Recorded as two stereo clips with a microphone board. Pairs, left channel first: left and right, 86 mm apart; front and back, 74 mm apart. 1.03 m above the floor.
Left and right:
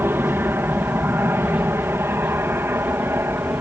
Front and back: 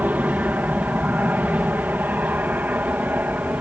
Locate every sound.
0.0 s an aircraft: 130° right